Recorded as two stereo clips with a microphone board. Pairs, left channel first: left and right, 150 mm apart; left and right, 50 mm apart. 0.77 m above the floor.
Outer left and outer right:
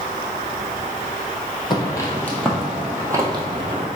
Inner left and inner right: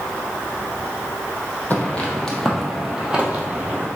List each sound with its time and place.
1.7 s footsteps: 30° left (ahead or behind), 1.3 m; by 3.9 s 40° right (ahead or behind), 1.4 m